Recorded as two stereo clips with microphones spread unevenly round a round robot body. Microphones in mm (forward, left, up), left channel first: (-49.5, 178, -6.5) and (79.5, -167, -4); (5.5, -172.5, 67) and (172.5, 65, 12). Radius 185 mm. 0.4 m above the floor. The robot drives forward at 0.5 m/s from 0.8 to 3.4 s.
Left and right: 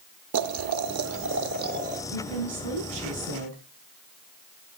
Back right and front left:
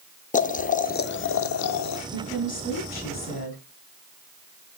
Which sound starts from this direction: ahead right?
Boiling, at 0.3 s.